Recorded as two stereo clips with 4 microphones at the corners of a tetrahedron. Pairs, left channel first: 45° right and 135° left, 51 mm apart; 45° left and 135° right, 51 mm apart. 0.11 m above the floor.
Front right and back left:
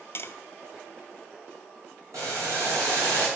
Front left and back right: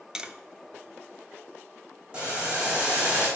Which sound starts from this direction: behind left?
Boiling, at 2.1 s.